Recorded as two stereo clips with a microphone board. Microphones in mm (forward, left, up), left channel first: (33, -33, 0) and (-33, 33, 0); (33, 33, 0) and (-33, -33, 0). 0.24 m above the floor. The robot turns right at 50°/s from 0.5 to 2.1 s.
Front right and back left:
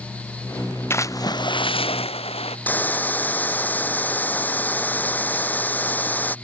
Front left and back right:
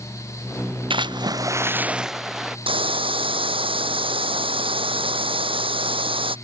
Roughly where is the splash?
Right.